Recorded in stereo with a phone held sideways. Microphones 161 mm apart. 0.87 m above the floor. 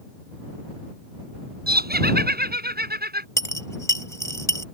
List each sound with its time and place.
1.7 s laughter: 80° right
3.4 s a dropped coin: 20° left (ahead or behind)